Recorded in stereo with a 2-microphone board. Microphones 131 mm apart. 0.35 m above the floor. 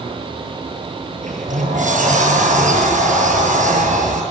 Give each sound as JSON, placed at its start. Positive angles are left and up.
{"t": 1.2, "sound": "a sliding door", "side_deg": -75, "distance_m": 5.5}